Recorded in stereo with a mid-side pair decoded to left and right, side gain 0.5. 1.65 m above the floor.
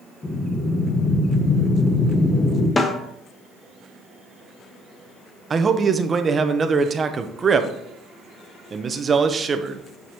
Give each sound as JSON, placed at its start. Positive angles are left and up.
{"t": 0.2, "sound": "breathing", "azimuth_deg": 15, "distance_m": 1.5}
{"t": 2.8, "sound": "a snare drum", "azimuth_deg": 25, "distance_m": 1.1}
{"t": 5.5, "sound": "a man speaking", "azimuth_deg": -35, "distance_m": 0.8}